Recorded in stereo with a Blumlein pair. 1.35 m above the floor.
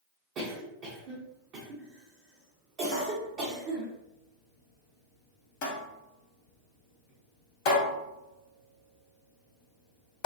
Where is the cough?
40° right, 0.7 m.